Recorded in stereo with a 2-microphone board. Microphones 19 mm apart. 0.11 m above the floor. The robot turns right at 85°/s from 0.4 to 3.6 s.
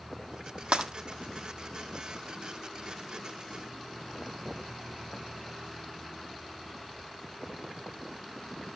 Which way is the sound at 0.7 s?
75° right (ahead or behind).